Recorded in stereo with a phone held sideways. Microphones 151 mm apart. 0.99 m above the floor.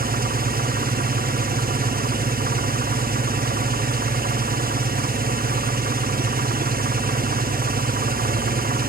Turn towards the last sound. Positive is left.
turn(degrees=-75)  # may be behind; listen again after turning